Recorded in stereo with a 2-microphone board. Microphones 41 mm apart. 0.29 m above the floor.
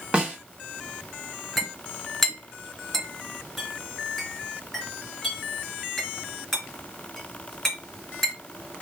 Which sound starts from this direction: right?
A snare drum, at 0.1 s.